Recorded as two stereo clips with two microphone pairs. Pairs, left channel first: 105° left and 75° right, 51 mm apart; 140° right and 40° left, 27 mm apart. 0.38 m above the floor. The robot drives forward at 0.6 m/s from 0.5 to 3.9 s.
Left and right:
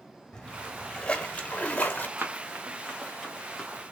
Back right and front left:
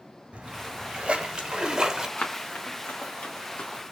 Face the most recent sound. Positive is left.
turn(degrees=-170)